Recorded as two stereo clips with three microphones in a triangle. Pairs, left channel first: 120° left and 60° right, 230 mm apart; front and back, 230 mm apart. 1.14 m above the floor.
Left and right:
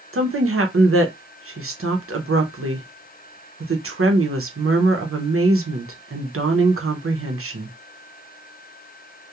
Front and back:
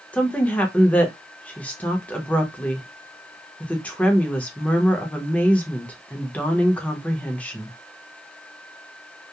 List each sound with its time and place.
0.1 s a woman speaking: 85° right, 0.7 m